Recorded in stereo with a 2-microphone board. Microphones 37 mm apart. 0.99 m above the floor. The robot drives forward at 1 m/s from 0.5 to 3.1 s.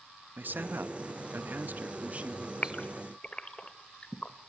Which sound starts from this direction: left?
A gasp, at 2.6 s.